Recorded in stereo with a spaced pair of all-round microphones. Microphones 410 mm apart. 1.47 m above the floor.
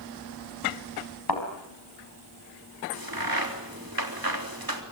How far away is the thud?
About 4.5 m.